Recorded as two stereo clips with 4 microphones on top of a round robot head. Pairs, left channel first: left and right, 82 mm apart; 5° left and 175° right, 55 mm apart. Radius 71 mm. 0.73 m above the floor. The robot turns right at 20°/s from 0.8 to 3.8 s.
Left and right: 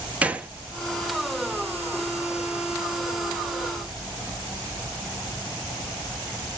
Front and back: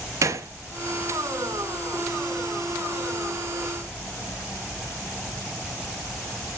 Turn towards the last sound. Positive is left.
turn(degrees=-100)